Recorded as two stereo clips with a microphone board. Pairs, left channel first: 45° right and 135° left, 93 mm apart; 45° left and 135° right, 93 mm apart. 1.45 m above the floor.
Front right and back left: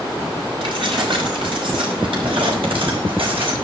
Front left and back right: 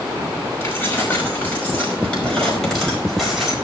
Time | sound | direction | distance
0.6 | keys jangling | 110° left | 5.5 m